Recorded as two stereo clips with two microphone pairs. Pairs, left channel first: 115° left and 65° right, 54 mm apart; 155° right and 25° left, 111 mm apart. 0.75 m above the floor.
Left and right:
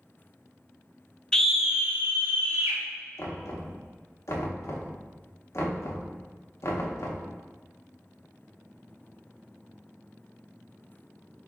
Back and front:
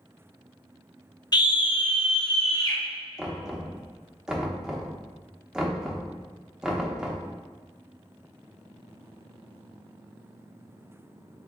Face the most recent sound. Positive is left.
turn(degrees=105)